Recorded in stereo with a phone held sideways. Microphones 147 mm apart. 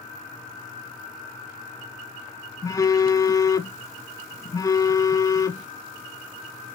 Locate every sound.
2.6 s a phone buzzing: 25° left (ahead or behind), 0.5 m